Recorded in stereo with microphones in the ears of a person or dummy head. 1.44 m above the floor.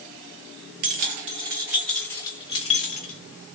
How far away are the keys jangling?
About 0.7 m.